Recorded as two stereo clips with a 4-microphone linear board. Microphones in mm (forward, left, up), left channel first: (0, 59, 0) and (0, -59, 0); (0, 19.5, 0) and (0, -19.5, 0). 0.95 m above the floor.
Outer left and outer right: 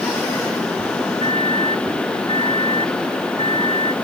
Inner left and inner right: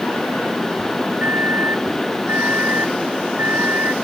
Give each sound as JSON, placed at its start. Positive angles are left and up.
{"t": 1.2, "sound": "a microwave", "side_deg": -65}